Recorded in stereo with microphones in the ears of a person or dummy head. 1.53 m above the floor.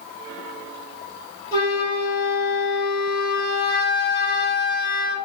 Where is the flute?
25° left (ahead or behind), 1.6 m.